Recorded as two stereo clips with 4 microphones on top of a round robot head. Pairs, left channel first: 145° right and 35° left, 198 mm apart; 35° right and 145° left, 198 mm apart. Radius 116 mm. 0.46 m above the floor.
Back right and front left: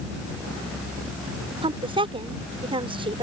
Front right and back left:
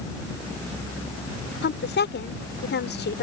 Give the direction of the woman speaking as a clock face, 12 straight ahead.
1 o'clock.